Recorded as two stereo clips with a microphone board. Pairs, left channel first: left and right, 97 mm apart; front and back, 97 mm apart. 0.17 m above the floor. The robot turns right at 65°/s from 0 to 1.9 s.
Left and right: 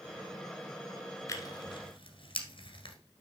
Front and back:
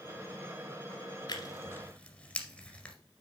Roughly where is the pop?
I don't hear a pop.